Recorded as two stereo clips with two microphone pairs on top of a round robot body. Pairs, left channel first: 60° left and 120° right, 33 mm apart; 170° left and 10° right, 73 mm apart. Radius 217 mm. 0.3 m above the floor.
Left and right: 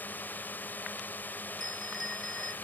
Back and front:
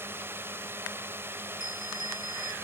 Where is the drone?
40° left.